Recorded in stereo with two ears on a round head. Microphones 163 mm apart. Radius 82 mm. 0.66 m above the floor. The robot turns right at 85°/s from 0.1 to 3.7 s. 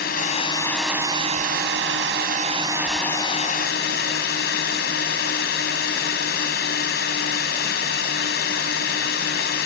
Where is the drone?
115° left; by 9.7 s 65° left.